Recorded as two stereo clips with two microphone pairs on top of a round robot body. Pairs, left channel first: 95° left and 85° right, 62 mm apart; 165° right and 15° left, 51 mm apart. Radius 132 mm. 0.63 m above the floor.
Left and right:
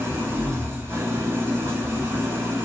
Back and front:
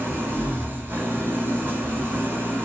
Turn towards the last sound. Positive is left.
turn(degrees=-25)